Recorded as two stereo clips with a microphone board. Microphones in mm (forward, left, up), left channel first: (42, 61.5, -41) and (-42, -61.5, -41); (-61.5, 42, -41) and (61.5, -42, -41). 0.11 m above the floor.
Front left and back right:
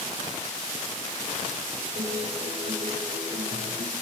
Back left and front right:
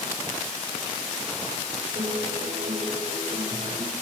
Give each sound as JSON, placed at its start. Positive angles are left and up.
{"t": 1.9, "sound": "a guitar", "azimuth_deg": -85, "distance_m": 8.0}